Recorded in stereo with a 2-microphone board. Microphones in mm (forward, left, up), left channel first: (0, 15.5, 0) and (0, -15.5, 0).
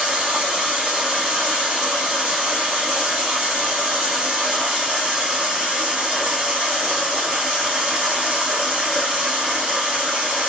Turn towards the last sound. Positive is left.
turn(degrees=-25)  # may be behind; listen again after turning